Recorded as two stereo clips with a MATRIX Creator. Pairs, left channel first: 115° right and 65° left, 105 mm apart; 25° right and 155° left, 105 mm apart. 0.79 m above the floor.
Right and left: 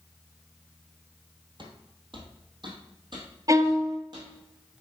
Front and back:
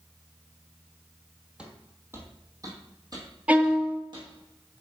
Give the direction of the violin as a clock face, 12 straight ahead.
9 o'clock.